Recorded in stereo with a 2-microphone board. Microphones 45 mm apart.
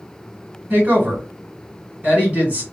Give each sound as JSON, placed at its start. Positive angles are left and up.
{"t": 0.7, "sound": "a woman speaking", "side_deg": -35, "distance_m": 1.6}